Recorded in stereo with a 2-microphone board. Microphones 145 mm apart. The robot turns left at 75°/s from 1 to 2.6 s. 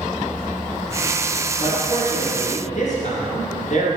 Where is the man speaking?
150° left, 2.5 m; by 4.0 s 75° left, 2.5 m.